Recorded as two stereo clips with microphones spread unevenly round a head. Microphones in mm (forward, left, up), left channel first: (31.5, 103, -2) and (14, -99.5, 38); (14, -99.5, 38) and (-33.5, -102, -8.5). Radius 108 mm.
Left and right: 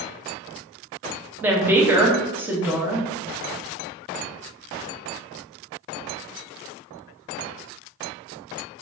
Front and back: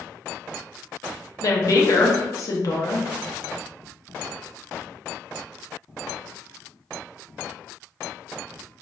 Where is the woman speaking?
15° right, 0.7 m.